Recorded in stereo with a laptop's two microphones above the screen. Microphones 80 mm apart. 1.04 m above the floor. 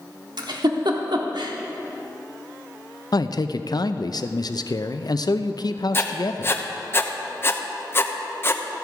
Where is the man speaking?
60° left (ahead or behind), 0.5 m.